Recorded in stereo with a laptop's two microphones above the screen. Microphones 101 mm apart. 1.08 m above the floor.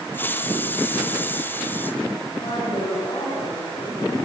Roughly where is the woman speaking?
Left.